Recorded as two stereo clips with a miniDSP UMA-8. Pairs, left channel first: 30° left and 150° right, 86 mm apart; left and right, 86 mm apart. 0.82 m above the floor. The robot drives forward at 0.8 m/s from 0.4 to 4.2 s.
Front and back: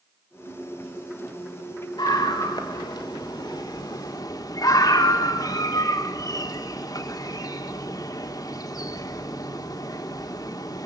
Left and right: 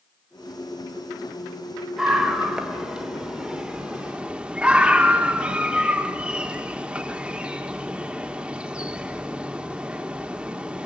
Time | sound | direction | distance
2.0 | a scream | 5° right | 3.5 m